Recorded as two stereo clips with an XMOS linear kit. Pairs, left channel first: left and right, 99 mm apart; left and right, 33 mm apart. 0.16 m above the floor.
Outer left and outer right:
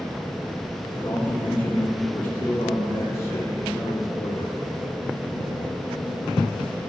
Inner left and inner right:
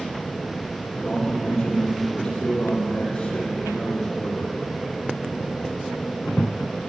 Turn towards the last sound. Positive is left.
turn(degrees=35)  # may be behind; listen again after turning